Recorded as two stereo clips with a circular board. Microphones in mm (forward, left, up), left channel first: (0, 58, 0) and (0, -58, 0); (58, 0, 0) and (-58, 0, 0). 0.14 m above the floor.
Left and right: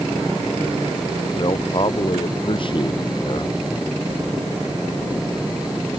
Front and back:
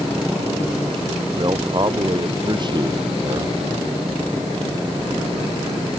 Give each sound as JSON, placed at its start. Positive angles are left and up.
{"t": 1.4, "sound": "a man speaking", "azimuth_deg": 135}